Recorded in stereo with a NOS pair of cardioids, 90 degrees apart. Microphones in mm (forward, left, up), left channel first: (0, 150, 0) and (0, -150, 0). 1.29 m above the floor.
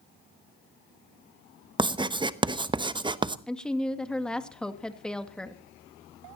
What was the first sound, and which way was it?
Writing, 15° right.